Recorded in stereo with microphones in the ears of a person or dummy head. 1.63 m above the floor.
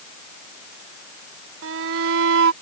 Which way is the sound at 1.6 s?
75° right (ahead or behind).